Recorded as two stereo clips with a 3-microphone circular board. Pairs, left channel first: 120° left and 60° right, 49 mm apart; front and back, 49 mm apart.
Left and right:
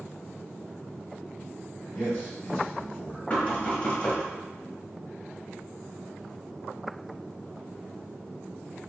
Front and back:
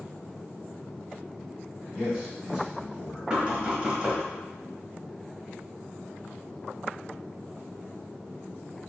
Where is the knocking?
135° left, 0.8 m.